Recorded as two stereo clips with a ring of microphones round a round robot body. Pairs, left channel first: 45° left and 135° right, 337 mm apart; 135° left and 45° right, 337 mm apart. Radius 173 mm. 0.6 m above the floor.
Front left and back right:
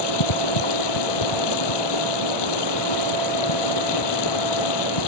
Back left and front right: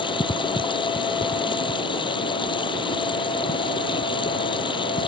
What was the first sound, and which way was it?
Running water, 60° left.